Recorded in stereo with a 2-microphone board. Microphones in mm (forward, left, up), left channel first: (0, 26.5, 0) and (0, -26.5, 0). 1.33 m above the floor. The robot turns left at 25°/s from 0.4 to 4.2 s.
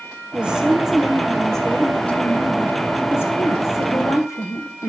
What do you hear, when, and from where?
0.3 s a woman speaking: 160° right, 1.1 m; by 4.9 s 105° left, 1.1 m